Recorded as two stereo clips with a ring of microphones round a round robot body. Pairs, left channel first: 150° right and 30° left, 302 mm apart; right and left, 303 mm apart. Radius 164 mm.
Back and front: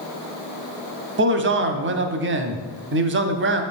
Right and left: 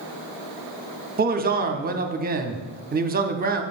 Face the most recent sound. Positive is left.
turn(degrees=50)